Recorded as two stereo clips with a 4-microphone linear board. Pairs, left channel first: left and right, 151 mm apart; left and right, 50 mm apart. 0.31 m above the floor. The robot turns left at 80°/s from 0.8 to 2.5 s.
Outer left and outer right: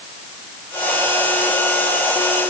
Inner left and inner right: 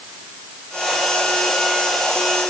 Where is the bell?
I don't hear a bell.